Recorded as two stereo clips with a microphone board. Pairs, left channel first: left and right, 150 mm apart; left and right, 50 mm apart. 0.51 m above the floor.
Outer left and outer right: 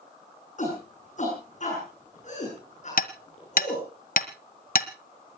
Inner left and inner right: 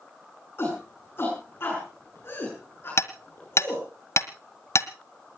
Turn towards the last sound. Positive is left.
turn(degrees=65)  # may be behind; listen again after turning